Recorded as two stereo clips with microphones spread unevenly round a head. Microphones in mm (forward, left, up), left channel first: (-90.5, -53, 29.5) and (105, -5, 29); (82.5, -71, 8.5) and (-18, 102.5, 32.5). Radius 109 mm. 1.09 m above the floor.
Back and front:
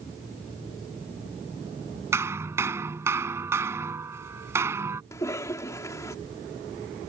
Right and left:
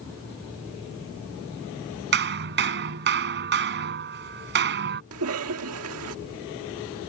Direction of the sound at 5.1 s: 115° left.